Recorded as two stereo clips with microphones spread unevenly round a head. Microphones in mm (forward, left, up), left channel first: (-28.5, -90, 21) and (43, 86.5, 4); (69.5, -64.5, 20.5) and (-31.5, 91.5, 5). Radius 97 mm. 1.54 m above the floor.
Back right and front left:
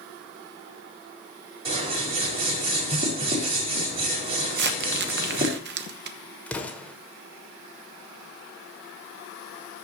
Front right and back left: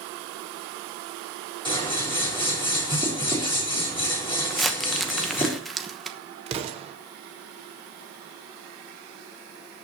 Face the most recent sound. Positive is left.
turn(degrees=175)